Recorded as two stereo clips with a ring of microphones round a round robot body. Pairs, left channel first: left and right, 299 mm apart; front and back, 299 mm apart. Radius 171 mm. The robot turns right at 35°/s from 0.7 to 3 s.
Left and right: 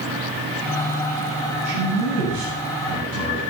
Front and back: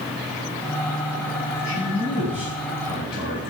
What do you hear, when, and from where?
1.6 s a man speaking: 120° right, 8.5 m; by 3.4 s 75° right, 8.5 m